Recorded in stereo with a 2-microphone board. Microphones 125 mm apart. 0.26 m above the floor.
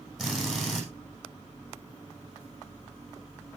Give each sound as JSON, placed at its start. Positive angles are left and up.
{"t": 0.2, "sound": "a drill", "side_deg": 0, "distance_m": 6.5}